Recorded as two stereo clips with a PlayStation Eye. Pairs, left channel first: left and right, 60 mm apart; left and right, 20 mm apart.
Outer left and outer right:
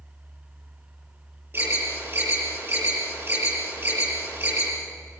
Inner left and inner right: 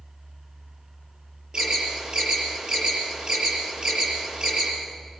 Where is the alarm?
40° right (ahead or behind), 7.5 m.